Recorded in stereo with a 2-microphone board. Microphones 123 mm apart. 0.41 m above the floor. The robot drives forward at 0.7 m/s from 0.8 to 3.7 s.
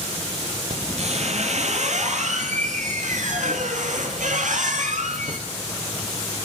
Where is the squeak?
60° right (ahead or behind), 5 m; by 5.4 s 85° right, 4.5 m.